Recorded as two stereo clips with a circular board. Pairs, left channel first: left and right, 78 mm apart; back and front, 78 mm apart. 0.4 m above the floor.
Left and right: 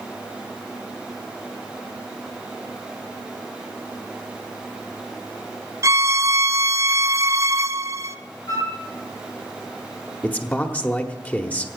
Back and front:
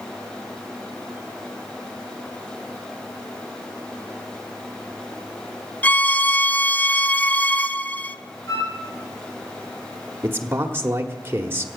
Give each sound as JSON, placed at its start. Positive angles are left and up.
{"t": 5.8, "sound": "a violin", "azimuth_deg": -115, "distance_m": 0.5}
{"t": 8.5, "sound": "a flute", "azimuth_deg": 135, "distance_m": 6.0}
{"t": 10.2, "sound": "a man speaking", "azimuth_deg": 35, "distance_m": 1.2}